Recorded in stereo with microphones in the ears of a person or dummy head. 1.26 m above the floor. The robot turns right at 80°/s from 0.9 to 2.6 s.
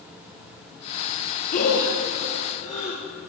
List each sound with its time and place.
1.5 s breathing: 45° left (ahead or behind), 4 m